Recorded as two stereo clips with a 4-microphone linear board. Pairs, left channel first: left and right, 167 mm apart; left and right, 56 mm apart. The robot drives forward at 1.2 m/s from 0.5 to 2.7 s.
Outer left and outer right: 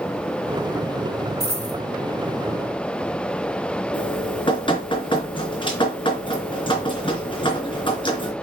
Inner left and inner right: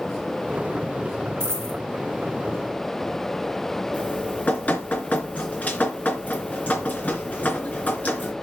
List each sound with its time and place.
1.4 s a dropped coin: 45° right (ahead or behind), 4.5 m; by 1.8 s 50° right (ahead or behind), 4 m
3.9 s dripping: 30° left (ahead or behind), 3 m